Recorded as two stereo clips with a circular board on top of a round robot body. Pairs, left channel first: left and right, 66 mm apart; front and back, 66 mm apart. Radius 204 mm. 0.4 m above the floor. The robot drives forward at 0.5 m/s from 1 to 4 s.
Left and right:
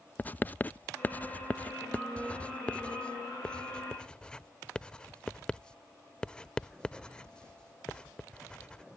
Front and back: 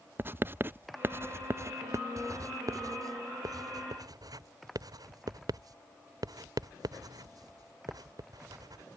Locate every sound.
0.2 s writing: 140° left; by 8.8 s 165° left